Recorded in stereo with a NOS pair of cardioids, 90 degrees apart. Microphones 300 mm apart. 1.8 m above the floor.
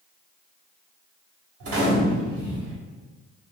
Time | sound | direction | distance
1.6 | a gunshot | 50° right | 1.0 m